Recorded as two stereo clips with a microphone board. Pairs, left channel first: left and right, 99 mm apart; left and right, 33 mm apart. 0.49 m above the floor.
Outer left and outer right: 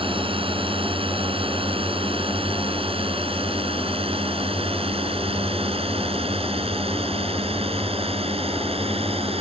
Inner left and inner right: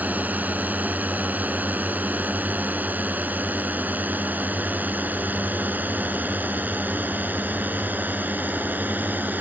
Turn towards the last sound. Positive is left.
turn(degrees=-75)  # may be behind; listen again after turning